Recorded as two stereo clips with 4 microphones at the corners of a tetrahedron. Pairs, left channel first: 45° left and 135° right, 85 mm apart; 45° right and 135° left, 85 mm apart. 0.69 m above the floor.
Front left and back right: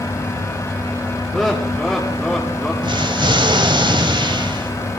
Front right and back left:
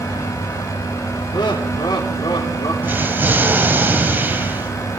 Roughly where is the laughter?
Ahead right.